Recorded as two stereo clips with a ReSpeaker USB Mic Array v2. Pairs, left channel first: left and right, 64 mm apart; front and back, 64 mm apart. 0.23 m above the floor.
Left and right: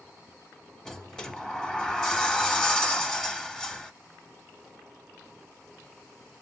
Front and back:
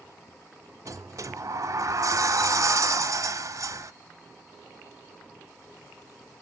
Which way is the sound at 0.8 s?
170° left.